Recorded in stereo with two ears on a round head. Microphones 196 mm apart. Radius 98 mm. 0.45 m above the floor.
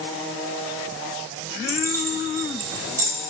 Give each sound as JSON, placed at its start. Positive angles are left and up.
{"t": 1.7, "sound": "keys jangling", "side_deg": -15, "distance_m": 1.8}